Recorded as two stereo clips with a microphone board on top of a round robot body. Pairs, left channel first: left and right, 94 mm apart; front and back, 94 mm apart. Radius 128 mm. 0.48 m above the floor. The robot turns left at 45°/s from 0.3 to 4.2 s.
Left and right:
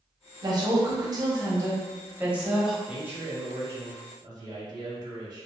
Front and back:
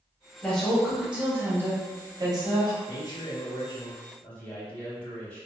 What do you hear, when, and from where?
0.4 s a woman speaking: 75° right, 1.0 m; by 2.8 s straight behind, 1.0 m
2.9 s a man speaking: 10° right, 1.2 m; by 5.5 s 75° right, 1.2 m